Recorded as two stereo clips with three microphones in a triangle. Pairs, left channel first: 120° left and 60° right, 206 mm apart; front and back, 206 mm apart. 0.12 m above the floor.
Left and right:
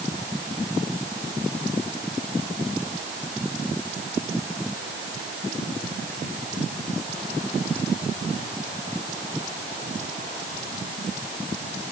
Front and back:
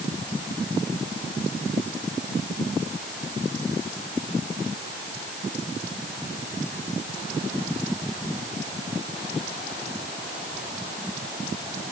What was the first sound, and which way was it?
Only background noise.